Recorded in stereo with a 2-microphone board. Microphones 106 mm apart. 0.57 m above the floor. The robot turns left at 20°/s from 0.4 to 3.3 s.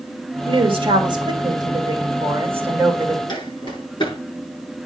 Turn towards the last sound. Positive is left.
turn(degrees=45)  # may be behind; listen again after turning